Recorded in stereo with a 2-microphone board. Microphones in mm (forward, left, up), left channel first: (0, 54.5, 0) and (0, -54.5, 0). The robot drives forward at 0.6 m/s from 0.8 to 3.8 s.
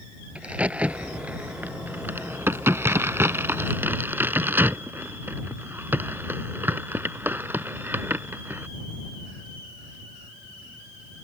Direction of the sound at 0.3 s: 10° right (ahead or behind).